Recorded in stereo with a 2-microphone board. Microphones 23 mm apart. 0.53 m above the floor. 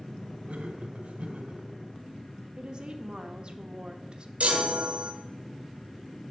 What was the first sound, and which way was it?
Laughter, 65° right (ahead or behind).